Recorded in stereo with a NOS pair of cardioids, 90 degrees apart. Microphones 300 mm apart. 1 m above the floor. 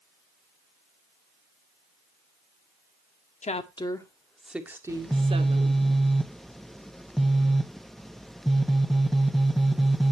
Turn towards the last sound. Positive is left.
turn(degrees=0)